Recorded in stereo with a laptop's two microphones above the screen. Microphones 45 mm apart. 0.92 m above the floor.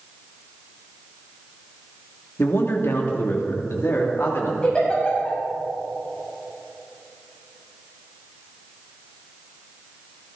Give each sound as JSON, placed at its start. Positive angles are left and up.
{"t": 2.4, "sound": "a man speaking", "side_deg": 60, "distance_m": 2.5}
{"t": 4.6, "sound": "a giggle", "side_deg": 25, "distance_m": 5.5}